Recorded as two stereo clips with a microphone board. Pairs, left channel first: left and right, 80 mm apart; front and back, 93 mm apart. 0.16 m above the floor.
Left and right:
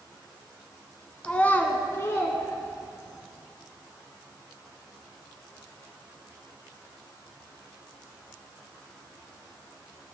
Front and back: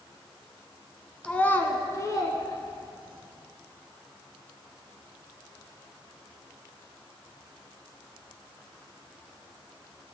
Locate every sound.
1.2 s a child speaking: 50° left, 0.6 m; by 3.3 s 45° left, 1.7 m